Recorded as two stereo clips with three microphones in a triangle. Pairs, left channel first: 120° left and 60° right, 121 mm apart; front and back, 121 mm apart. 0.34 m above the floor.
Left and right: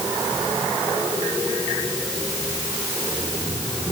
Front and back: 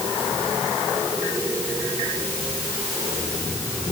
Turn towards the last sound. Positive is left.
No sound to turn to.